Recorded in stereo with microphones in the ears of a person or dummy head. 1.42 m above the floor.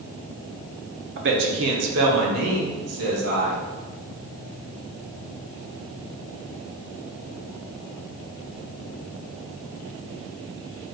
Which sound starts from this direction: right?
A man speaking, at 1.2 s.